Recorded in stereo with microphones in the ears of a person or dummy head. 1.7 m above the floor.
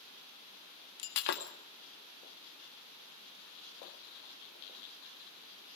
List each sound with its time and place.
1.0 s breaking glass: 50° left (ahead or behind), 1.8 m